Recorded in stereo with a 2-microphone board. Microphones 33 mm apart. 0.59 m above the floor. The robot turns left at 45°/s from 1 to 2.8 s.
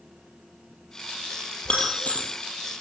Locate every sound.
1.6 s breaking glass: 35° left (ahead or behind), 3.5 m; by 2.3 s 65° left (ahead or behind), 3.5 m